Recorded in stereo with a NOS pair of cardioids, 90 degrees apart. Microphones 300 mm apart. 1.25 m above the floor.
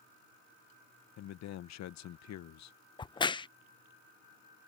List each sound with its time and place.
1.2 s a man speaking: 70° left
3.0 s a crack: 15° left